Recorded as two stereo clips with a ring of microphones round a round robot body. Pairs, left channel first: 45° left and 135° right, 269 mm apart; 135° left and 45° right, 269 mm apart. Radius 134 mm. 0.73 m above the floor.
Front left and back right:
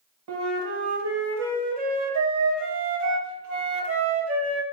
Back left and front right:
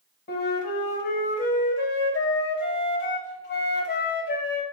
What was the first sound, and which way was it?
A flute, 175° right.